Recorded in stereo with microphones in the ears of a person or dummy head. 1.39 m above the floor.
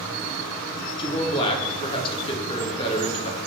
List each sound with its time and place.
1.0 s a man speaking: 30° left (ahead or behind), 0.8 m